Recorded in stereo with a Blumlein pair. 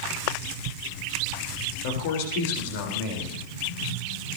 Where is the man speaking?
50° left, 4 m.